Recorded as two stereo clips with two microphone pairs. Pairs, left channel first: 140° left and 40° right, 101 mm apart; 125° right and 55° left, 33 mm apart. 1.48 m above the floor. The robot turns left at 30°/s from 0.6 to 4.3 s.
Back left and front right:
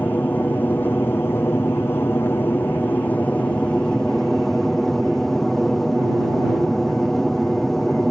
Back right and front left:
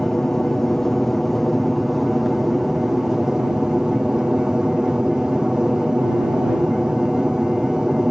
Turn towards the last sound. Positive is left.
turn(degrees=60)